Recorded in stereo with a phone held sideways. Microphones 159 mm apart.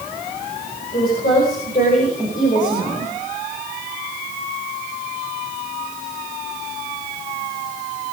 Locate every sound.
0.9 s a woman speaking: 60° left (ahead or behind), 6.5 m; by 3.1 s 50° left (ahead or behind), 4 m